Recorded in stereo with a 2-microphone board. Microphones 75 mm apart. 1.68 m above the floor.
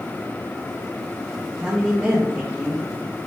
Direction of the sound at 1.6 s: 15° right (ahead or behind).